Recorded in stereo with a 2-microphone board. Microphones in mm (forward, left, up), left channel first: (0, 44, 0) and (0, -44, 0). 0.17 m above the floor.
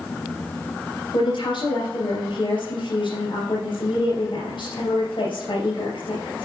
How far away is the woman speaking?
About 3.5 m.